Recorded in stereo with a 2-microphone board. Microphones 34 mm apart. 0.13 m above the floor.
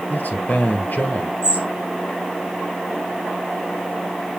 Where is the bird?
80° left, 3.5 m.